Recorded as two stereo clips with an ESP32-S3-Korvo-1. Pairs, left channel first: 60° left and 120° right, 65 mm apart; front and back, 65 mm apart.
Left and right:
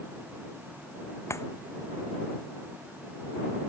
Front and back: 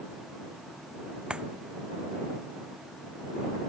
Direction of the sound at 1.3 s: 105° left.